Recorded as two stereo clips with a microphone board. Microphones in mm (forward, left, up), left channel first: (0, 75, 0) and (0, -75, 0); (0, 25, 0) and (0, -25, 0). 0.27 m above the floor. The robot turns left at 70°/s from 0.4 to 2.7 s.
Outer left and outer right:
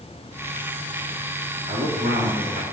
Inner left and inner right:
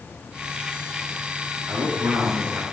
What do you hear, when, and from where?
1.7 s a man speaking: 50° right, 3.5 m; by 2.6 s 115° right, 3.5 m